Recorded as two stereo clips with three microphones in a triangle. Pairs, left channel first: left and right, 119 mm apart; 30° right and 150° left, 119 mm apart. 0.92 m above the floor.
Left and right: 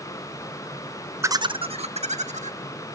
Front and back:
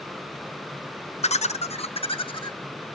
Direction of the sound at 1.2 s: 25° right.